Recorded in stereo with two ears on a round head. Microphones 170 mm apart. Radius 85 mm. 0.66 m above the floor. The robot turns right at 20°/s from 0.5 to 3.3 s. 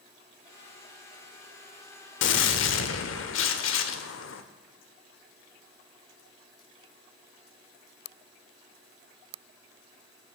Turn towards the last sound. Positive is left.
turn(degrees=80)